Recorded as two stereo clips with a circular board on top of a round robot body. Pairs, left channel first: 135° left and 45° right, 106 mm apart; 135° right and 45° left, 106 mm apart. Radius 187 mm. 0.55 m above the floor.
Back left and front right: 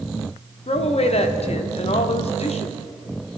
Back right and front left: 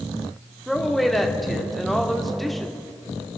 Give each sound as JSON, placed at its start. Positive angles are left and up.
{"t": 0.7, "sound": "a woman speaking", "azimuth_deg": 135, "distance_m": 1.7}